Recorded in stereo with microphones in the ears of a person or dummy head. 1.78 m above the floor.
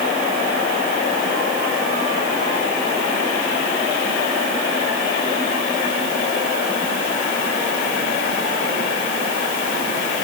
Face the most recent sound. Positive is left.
No sound to turn to.